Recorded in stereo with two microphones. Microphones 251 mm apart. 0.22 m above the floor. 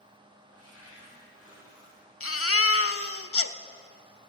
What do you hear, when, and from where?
0.5 s a cupboard door: 65° right (ahead or behind), 6.5 m
2.2 s a baby crying: 60° left (ahead or behind), 0.6 m